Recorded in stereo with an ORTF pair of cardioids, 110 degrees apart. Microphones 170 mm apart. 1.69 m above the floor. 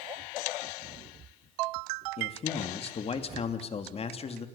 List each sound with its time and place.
2.2 s a man speaking: 35° left, 3 m